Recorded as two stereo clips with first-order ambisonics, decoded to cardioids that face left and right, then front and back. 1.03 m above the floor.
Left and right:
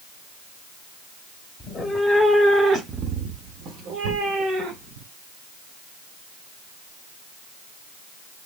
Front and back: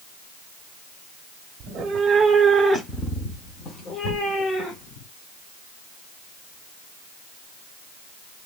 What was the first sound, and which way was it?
A cat meowing, 155° left.